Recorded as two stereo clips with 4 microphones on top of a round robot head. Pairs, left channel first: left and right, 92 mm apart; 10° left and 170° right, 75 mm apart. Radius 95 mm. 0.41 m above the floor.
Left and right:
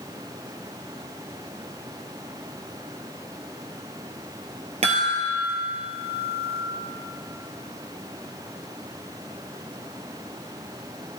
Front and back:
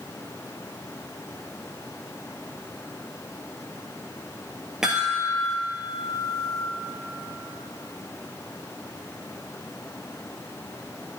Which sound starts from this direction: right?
A chime, at 4.8 s.